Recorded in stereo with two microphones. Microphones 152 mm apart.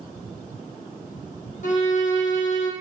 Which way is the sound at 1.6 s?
55° left (ahead or behind).